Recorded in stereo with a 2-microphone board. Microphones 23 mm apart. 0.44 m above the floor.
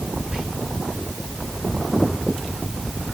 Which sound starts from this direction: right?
Whispering, at 0.3 s.